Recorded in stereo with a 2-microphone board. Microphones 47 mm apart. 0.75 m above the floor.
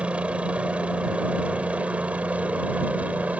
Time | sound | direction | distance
0.0 | a helicopter | 25° right (ahead or behind) | ?